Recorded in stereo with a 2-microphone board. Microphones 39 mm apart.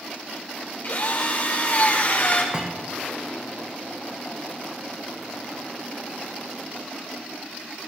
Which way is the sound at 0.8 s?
50° left (ahead or behind).